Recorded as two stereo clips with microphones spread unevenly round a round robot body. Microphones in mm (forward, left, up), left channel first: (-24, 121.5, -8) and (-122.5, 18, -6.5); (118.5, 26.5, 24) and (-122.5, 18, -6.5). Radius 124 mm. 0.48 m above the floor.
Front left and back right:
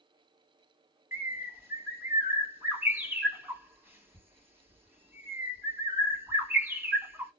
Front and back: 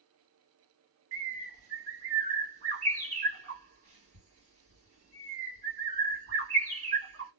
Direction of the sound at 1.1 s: 150° left.